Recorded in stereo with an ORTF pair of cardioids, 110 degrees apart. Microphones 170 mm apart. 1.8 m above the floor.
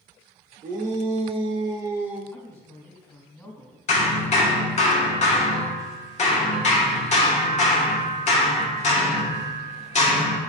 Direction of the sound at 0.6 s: 50° right.